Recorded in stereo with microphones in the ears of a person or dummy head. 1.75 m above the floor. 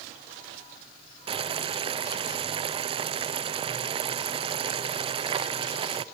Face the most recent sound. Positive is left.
turn(degrees=-30)  # may be behind; listen again after turning